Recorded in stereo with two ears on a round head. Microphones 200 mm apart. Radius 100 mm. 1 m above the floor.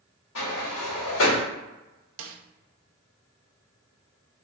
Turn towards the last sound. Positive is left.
turn(degrees=-60)  # may be behind; listen again after turning